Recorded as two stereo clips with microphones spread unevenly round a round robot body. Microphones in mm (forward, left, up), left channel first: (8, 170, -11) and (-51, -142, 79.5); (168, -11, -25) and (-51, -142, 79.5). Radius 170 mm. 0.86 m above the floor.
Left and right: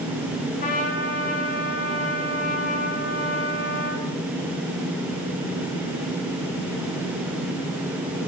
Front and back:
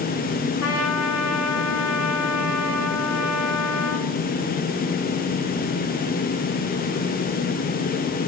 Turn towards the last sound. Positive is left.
turn(degrees=20)